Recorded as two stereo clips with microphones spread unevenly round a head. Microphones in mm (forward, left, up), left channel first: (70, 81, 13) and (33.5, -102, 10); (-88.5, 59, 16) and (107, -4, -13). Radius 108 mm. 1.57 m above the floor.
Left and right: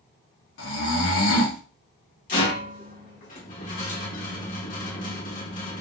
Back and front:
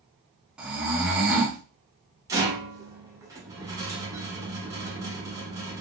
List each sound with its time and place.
0.6 s snoring: 70° left, 0.8 m
2.3 s a rattle: 60° left, 1.1 m